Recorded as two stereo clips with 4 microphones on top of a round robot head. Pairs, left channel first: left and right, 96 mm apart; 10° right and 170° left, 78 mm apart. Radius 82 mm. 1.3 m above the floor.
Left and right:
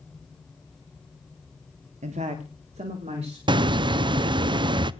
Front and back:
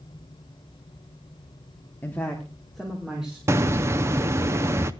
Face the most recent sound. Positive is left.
turn(degrees=-130)